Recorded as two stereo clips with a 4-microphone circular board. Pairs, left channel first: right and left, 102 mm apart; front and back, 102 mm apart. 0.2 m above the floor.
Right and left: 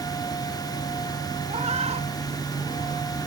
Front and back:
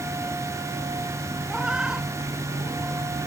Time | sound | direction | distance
1.5 | a cat meowing | 100° left | ?